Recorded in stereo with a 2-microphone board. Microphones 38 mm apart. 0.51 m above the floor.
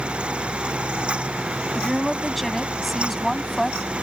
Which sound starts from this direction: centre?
A woman speaking, at 1.8 s.